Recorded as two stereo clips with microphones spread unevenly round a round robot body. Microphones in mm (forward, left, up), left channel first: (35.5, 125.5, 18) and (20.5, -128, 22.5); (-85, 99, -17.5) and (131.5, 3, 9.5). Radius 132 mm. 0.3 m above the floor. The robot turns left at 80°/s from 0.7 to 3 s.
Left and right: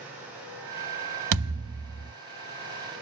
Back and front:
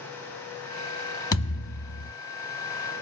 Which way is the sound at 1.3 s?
130° right.